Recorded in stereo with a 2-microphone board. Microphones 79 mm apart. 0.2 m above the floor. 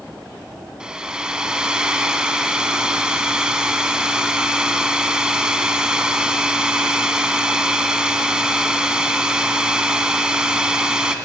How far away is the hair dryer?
About 1.4 m.